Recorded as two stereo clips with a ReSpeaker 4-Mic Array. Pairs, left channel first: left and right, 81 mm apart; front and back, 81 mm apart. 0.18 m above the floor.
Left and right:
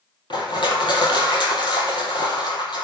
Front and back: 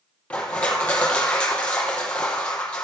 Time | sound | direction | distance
0.3 | crushing | 75° left | 3.5 m